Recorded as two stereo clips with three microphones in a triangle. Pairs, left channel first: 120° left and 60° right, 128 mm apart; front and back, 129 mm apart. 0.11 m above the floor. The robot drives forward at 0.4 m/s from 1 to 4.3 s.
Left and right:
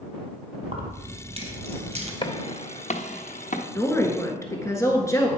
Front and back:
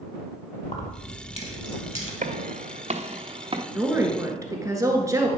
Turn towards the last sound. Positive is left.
turn(degrees=155)